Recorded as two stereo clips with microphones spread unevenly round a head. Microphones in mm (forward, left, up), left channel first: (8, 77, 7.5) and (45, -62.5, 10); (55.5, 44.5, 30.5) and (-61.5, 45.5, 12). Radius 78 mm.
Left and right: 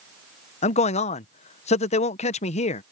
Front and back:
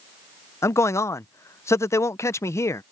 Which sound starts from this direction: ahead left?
A man speaking, at 0.6 s.